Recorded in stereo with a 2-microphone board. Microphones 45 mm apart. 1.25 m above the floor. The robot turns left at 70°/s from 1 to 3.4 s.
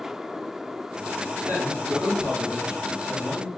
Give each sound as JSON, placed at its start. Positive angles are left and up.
{"t": 1.5, "sound": "a man speaking", "azimuth_deg": -45, "distance_m": 1.3}